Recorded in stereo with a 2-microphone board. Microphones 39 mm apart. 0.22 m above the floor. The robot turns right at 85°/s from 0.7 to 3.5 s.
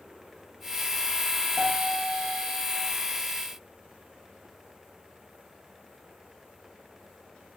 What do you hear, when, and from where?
1.6 s a piano: 5° left, 3.5 m; by 2.9 s 120° left, 3.5 m